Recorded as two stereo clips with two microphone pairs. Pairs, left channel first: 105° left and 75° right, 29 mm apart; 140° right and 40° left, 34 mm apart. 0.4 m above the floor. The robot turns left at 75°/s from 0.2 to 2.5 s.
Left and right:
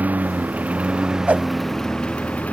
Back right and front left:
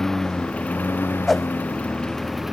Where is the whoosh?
55° right; by 1.5 s 70° right.